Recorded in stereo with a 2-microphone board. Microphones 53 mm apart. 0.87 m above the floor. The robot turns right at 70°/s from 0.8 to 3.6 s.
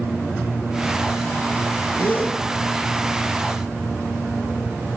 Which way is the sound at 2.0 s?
45° left (ahead or behind).